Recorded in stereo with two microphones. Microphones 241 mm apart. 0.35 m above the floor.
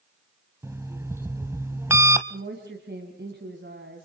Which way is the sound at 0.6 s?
10° right (ahead or behind).